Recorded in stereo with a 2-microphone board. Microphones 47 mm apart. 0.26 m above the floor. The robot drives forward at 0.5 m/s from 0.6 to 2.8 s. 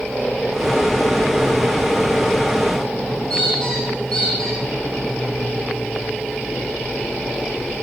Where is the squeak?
15° left (ahead or behind), 7.5 m.